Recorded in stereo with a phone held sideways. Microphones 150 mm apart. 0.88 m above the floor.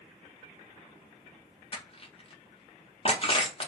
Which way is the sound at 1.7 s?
40° left (ahead or behind).